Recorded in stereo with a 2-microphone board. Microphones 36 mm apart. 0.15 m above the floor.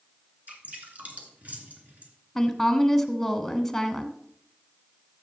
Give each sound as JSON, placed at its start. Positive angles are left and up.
{"t": 0.5, "sound": "dripping", "side_deg": -45, "distance_m": 2.5}
{"t": 2.4, "sound": "a woman speaking", "side_deg": 5, "distance_m": 1.0}